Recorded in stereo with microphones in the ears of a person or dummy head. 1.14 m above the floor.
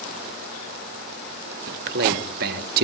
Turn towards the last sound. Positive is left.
turn(degrees=-50)  # may be behind; listen again after turning